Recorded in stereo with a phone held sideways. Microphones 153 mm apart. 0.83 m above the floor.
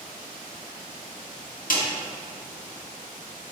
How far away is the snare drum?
About 1.9 m.